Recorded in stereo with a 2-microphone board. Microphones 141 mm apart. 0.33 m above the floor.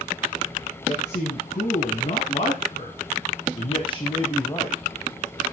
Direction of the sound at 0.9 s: 50° left (ahead or behind).